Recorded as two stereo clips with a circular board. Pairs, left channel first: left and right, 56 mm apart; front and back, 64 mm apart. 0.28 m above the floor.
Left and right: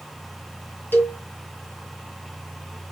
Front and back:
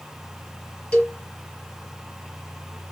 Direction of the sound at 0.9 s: 65° left.